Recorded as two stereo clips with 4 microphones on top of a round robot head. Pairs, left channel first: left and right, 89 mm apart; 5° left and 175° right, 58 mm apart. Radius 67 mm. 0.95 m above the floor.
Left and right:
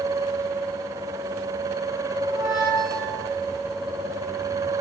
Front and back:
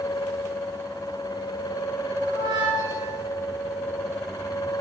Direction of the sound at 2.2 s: 160° right.